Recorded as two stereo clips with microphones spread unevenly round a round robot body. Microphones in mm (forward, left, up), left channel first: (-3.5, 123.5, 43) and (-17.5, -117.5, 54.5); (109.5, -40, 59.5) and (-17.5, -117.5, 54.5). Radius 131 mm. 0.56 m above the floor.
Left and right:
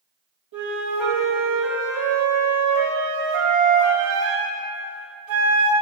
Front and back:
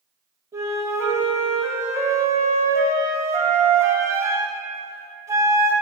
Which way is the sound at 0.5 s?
75° right.